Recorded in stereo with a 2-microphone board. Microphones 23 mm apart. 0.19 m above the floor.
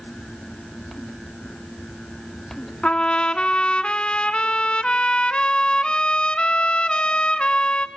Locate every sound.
2.8 s a trumpet: 45° left (ahead or behind), 1.1 m